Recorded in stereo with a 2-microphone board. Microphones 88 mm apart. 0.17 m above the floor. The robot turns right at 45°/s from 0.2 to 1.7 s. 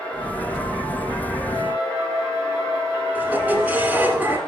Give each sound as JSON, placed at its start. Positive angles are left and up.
{"t": 1.5, "sound": "a flute", "side_deg": 60, "distance_m": 1.6}
{"t": 3.1, "sound": "a squeak", "side_deg": -20, "distance_m": 1.4}